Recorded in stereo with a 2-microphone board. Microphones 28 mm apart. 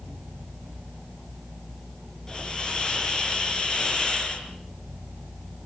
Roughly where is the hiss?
Left.